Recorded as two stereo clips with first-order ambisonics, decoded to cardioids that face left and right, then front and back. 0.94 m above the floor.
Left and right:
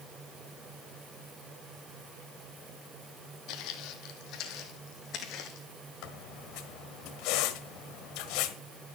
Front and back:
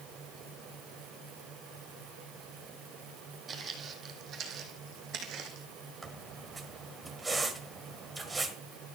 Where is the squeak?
100° left, 1.4 m.